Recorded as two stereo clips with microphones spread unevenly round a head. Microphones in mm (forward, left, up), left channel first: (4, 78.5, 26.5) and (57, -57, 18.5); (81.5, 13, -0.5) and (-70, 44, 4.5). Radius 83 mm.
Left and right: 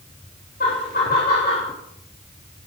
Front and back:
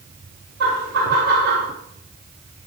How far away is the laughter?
About 3.5 m.